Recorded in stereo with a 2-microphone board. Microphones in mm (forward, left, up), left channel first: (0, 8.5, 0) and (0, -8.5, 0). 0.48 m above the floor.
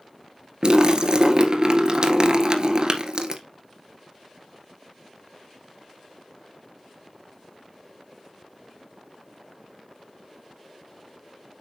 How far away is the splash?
About 1.7 m.